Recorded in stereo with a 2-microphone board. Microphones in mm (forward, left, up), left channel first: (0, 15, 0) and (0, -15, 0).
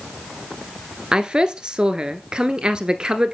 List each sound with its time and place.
1.1 s a woman speaking: 30° right (ahead or behind), 1.5 m